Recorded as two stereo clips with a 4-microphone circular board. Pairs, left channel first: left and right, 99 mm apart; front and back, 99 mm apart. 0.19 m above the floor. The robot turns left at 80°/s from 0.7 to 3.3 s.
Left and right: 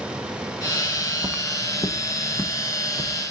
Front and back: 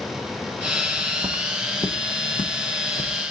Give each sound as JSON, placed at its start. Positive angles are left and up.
{"t": 0.9, "sound": "footsteps", "azimuth_deg": -110, "distance_m": 0.9}